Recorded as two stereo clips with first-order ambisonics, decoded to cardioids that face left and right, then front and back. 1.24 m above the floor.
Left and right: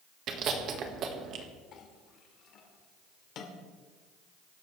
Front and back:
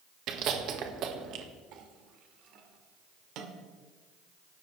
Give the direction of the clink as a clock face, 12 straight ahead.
7 o'clock.